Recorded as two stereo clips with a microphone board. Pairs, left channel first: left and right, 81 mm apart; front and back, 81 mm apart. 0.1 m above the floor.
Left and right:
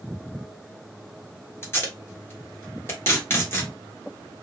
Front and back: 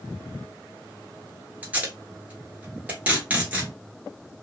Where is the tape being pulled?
120° left, 1.4 m.